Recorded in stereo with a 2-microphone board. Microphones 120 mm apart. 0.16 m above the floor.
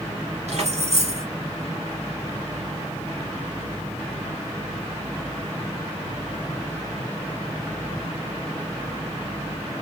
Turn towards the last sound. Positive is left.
turn(degrees=-65)  # may be behind; listen again after turning